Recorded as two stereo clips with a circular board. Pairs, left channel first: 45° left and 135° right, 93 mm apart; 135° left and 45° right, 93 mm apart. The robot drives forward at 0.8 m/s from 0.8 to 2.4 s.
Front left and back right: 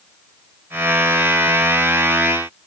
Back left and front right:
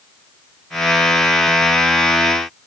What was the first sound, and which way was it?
Only background noise.